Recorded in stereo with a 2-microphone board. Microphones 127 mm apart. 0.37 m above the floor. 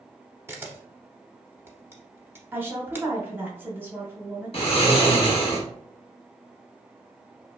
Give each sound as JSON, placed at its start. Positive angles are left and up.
{"t": 0.5, "sound": "a camera shutter", "side_deg": -20, "distance_m": 0.7}
{"t": 2.5, "sound": "a woman speaking", "side_deg": -15, "distance_m": 1.0}
{"t": 4.5, "sound": "snoring", "side_deg": 50, "distance_m": 0.8}